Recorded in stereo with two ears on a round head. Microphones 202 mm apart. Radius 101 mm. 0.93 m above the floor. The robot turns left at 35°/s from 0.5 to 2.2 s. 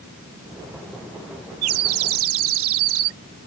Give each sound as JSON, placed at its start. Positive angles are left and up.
{"t": 1.6, "sound": "a bird", "side_deg": -70}